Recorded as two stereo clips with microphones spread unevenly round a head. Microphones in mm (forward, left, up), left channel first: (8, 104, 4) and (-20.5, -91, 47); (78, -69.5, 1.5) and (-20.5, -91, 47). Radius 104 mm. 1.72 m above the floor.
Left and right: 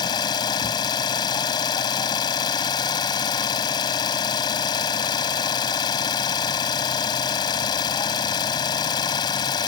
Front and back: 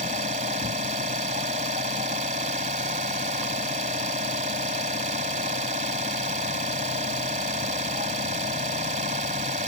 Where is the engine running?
155° left.